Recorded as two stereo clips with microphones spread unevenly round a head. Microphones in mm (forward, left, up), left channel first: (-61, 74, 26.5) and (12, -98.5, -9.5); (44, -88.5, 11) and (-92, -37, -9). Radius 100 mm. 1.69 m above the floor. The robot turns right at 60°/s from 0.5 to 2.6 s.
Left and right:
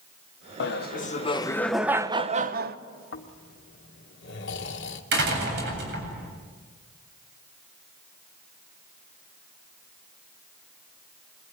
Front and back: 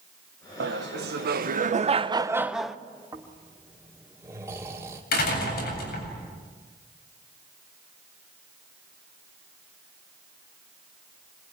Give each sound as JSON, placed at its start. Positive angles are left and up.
{"t": 0.6, "sound": "laughter", "azimuth_deg": 130, "distance_m": 1.2}
{"t": 3.1, "sound": "snoring", "azimuth_deg": 80, "distance_m": 1.9}
{"t": 5.1, "sound": "a door slam", "azimuth_deg": -25, "distance_m": 8.0}